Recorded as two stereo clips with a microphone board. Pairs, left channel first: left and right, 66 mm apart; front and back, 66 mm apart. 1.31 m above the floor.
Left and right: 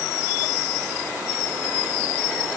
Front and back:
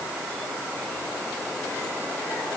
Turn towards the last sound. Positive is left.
No sound to turn to.